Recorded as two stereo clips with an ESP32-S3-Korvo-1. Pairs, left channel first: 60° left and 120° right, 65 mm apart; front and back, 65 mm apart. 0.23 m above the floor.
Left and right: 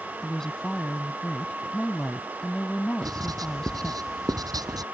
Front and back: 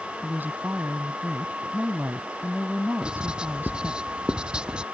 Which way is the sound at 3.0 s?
105° right.